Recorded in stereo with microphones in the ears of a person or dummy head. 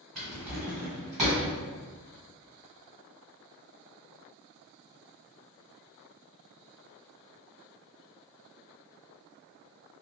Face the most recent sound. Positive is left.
turn(degrees=-20)  # may be behind; listen again after turning